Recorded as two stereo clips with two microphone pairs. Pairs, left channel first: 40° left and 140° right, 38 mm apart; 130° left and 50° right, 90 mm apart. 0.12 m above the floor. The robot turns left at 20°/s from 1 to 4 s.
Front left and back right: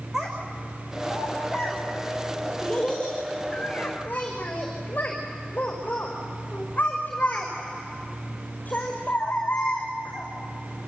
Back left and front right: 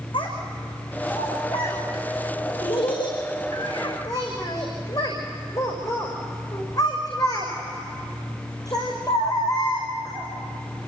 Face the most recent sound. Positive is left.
turn(degrees=85)